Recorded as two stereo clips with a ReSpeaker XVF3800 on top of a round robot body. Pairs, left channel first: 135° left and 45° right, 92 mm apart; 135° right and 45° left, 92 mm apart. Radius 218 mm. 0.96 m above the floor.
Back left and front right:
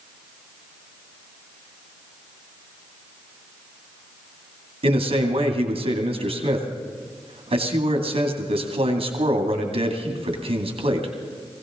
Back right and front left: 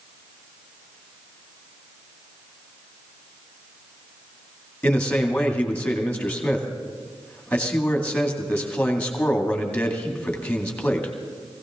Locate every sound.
4.8 s a man speaking: 55° right, 2 m